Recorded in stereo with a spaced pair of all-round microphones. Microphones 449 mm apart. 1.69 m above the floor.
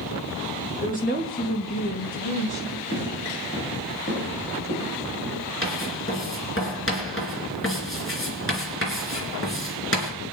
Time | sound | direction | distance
0.8 | a woman speaking | 15° left (ahead or behind) | 3 m
2.9 | footsteps | 15° left (ahead or behind) | 7.5 m
5.6 | writing | 30° left (ahead or behind) | 3.5 m